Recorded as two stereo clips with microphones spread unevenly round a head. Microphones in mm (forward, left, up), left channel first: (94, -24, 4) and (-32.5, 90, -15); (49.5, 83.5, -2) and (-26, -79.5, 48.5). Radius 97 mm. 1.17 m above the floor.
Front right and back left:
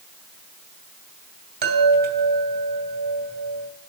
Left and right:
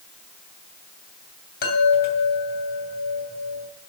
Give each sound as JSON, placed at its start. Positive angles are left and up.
{"t": 1.6, "sound": "a chime", "azimuth_deg": 110, "distance_m": 2.5}